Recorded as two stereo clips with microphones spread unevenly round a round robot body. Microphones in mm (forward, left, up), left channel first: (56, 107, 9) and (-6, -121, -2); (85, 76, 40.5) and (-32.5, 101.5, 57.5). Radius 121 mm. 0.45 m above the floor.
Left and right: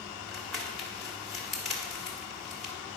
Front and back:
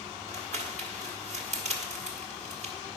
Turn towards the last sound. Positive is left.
turn(degrees=165)